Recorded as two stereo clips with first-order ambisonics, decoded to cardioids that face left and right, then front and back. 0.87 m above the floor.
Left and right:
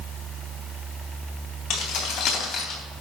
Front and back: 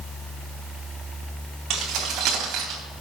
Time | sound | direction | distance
1.7 | keys jangling | 135° left | 3.5 m